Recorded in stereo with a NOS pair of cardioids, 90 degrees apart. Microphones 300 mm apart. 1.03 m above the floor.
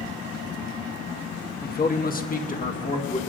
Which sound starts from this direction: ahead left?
A man speaking, at 1.6 s.